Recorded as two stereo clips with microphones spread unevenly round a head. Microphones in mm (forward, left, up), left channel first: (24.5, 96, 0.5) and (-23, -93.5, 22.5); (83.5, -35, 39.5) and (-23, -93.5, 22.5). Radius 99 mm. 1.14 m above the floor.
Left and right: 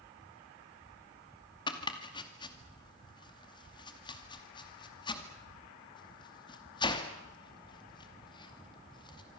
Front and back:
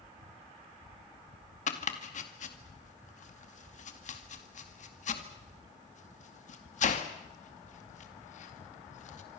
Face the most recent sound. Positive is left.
turn(degrees=10)